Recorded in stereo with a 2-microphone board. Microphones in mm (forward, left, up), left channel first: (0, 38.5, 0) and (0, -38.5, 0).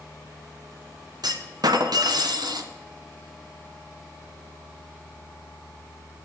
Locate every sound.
1.2 s a clunk: 65° right (ahead or behind), 1.2 m